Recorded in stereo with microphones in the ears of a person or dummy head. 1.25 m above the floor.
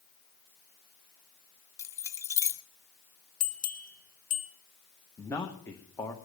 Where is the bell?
40° left (ahead or behind), 1.0 m.